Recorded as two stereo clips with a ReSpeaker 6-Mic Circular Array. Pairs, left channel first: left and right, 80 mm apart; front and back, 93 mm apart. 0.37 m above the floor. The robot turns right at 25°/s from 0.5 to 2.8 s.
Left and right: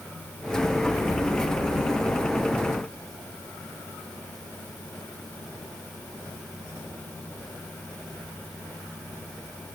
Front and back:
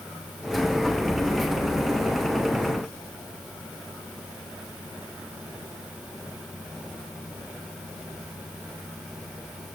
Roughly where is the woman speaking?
No woman speaking in this recording.